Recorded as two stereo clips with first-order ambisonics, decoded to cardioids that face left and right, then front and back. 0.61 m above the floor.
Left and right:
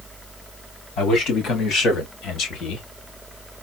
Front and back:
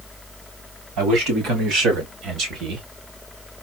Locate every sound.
1.0 s a man speaking: 145° left, 3.5 m; by 2.9 s 135° left, 1.4 m